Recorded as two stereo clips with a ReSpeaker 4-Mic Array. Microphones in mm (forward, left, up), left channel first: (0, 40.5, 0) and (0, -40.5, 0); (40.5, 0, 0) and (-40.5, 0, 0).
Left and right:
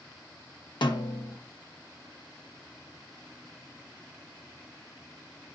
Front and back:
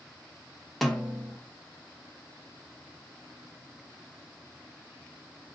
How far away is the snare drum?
About 1.0 m.